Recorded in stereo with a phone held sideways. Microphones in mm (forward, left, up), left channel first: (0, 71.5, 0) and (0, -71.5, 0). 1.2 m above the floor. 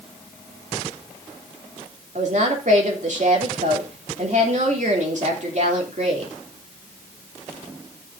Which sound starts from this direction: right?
A woman speaking, at 2.1 s.